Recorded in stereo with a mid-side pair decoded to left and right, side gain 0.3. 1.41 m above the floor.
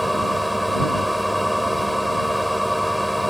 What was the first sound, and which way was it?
A machine running, 5° left.